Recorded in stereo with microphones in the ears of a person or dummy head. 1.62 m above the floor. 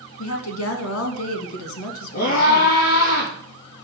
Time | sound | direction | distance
0.2 | a woman speaking | 85° left | 2 m
2.1 | a scream | 45° left (ahead or behind) | 3.5 m